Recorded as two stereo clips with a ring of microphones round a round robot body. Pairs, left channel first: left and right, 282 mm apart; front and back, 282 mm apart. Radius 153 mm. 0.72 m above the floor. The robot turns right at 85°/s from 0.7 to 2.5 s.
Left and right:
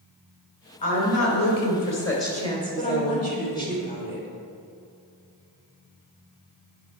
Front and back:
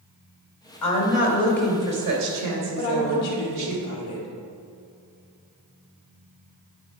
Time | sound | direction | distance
0.8 | a woman speaking | 20° left | 2.5 m
2.8 | a woman speaking | 25° left | 2 m